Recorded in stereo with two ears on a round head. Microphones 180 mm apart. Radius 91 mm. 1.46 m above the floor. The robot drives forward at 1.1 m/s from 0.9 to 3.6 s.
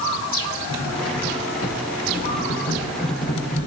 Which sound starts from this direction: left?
Cutlery clinking, at 0.7 s.